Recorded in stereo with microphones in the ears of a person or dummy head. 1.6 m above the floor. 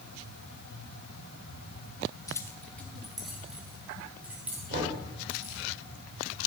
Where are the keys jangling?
25° left (ahead or behind), 0.9 m; by 5.6 s 5° right (ahead or behind), 4.5 m.